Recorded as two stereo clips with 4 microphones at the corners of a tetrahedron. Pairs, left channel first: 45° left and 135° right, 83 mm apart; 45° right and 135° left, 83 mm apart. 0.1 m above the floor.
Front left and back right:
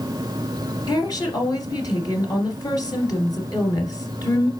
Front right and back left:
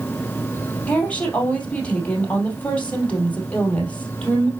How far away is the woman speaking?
About 2.5 m.